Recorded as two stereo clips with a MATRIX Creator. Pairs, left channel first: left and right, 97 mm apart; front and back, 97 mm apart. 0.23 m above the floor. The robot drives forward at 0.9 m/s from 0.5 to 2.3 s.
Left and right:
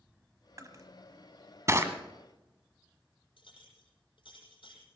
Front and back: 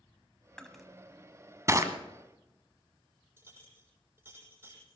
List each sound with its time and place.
0.6 s crushing: 80° right, 1.3 m; by 1.9 s 145° right, 1.7 m
3.4 s a clink: 115° left, 6.5 m